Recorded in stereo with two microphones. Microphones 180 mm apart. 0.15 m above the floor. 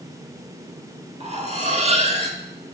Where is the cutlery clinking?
40° right (ahead or behind), 1.0 m.